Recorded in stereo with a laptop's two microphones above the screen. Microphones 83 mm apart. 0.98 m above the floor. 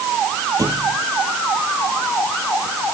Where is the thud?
45° right (ahead or behind).